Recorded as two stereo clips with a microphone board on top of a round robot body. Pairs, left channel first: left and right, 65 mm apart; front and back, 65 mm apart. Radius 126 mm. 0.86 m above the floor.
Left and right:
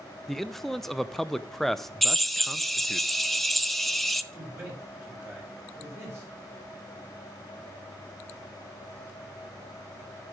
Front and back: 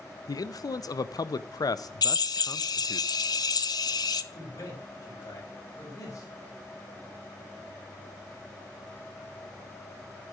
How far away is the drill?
About 1.0 m.